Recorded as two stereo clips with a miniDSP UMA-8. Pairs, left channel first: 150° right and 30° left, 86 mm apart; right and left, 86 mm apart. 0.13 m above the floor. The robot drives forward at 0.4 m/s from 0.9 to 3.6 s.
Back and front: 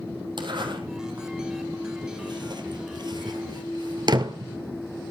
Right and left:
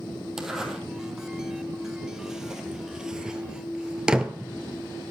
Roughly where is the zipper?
Ahead.